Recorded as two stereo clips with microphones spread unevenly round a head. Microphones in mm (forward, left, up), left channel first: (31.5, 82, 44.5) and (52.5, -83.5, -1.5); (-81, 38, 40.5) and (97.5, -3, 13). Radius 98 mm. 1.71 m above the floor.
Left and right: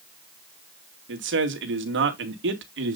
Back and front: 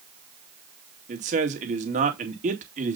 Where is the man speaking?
70° right, 2 m.